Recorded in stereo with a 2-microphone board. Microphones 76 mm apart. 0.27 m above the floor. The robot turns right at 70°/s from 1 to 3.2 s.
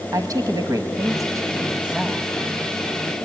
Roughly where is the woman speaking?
Right.